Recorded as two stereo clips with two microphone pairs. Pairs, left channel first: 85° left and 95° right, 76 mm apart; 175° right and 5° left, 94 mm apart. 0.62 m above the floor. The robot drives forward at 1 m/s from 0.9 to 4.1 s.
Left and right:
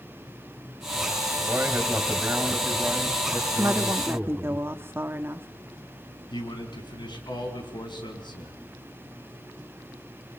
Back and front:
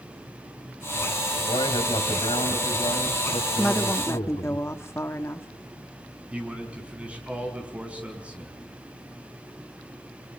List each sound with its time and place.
1.5 s a man speaking: 160° right, 3.5 m; by 4.6 s 170° right, 6 m
3.6 s a woman speaking: 95° right, 1.2 m; by 5.5 s 130° right, 1.3 m
6.3 s a man speaking: 85° left, 4.5 m